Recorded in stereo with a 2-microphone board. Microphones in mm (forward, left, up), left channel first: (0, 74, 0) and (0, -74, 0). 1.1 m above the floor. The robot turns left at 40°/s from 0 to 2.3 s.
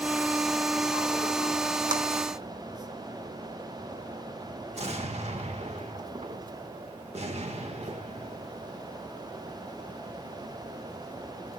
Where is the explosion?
45° right (ahead or behind), 1.2 m.